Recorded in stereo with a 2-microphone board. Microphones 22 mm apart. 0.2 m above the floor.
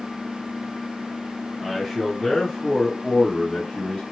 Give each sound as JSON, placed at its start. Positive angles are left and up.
{"t": 1.6, "sound": "a man speaking", "side_deg": -10, "distance_m": 1.4}